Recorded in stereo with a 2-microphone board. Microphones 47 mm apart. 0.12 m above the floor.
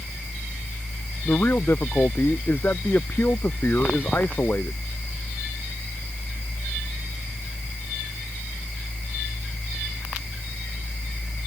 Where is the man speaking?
50° left (ahead or behind).